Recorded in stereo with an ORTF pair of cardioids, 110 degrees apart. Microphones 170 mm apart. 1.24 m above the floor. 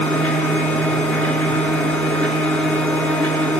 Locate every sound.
0.0 s a machine running: 5° left, 4.5 m